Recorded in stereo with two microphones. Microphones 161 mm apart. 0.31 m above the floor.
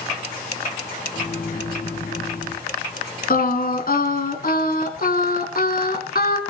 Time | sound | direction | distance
1.1 | a microwave | 65° left (ahead or behind) | 3 m
3.3 | singing | 65° left (ahead or behind) | 2 m